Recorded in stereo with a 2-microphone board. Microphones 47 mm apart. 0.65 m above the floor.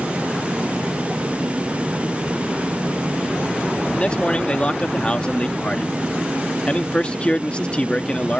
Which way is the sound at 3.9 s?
25° left (ahead or behind).